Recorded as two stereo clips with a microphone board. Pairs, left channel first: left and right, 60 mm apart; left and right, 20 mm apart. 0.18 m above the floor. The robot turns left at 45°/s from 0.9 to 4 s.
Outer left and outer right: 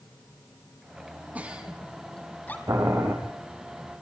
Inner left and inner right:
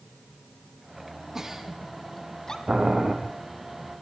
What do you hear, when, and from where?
1.4 s a giggle: 25° right (ahead or behind), 2.5 m; by 2.6 s 30° left (ahead or behind), 2.5 m
2.7 s boiling: 70° right (ahead or behind), 4 m; by 3.1 s 45° right (ahead or behind), 4 m